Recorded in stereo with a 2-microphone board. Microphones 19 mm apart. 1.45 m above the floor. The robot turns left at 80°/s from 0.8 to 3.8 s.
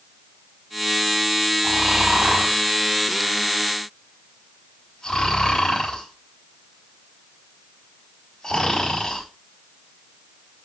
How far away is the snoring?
About 5 m.